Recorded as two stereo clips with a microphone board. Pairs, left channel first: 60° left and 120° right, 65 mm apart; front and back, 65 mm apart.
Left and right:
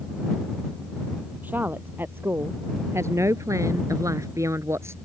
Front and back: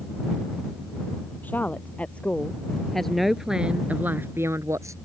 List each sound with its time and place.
1.4 s a woman speaking: 60° right; by 5.0 s 160° right